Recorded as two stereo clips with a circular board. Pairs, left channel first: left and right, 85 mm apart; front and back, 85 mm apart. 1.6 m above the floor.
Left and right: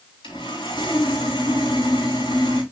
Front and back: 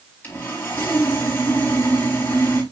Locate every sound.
0.2 s sawing: 65° left, 4 m